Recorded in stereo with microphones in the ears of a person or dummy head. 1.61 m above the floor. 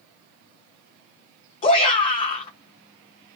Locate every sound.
1.6 s a shout: 35° left (ahead or behind), 1.0 m